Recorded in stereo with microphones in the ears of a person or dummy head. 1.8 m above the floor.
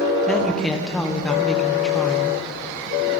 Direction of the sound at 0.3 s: 5° left (ahead or behind).